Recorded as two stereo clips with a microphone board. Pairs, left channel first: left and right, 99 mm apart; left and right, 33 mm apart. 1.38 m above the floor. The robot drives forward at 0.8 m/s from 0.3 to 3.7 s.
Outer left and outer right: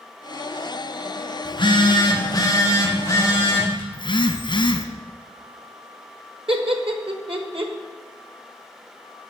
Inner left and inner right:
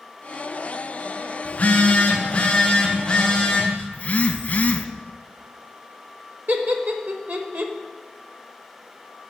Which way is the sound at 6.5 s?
65° right (ahead or behind).